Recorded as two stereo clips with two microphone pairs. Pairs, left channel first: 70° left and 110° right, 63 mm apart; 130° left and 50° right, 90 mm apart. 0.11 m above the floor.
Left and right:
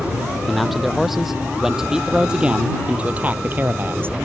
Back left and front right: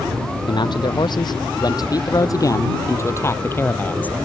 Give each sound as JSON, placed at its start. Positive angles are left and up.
{"t": 0.5, "sound": "a man speaking", "azimuth_deg": 160}